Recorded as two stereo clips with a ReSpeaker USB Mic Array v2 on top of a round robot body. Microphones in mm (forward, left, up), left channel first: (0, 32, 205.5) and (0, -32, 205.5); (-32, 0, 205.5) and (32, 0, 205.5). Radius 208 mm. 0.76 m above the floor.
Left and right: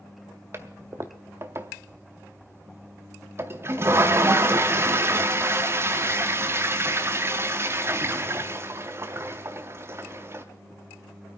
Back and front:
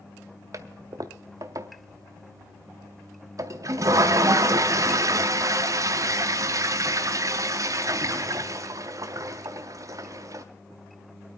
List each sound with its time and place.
0.5 s a toilet flushing: 35° right, 0.5 m